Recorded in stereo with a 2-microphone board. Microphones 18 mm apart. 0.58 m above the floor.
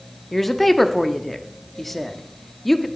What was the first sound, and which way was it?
A woman speaking, 10° left (ahead or behind).